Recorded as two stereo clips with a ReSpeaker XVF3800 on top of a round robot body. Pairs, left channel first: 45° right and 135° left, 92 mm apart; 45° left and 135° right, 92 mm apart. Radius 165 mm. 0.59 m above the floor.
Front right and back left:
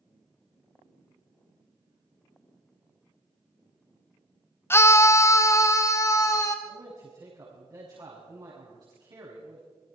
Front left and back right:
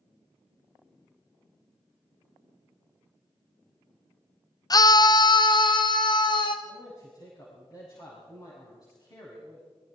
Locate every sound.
4.7 s a scream: 10° left, 0.8 m
6.7 s a man speaking: 90° left, 6.5 m